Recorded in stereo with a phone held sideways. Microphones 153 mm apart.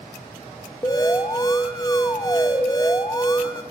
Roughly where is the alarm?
Left.